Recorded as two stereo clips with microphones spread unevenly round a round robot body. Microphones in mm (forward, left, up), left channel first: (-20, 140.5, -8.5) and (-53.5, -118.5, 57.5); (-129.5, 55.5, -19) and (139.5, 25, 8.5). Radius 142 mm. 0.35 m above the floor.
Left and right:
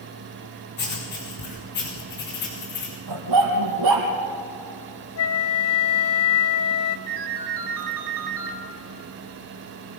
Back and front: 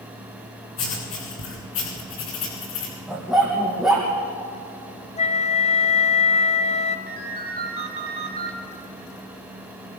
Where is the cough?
I don't hear a cough.